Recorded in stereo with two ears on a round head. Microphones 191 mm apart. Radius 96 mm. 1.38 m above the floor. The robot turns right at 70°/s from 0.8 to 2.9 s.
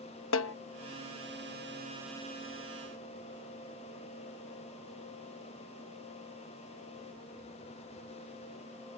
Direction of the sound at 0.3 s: 65° left (ahead or behind).